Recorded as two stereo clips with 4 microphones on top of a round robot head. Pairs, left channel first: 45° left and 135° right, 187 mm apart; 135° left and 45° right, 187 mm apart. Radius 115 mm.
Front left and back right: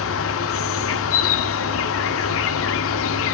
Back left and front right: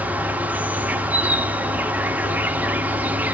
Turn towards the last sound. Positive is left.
turn(degrees=40)